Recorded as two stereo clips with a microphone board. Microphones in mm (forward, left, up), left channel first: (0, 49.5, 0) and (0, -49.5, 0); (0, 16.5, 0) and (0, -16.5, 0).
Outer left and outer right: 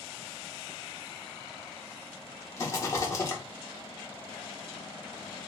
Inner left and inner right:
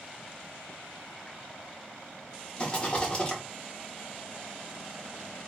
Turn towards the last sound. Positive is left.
turn(degrees=30)  # may be behind; listen again after turning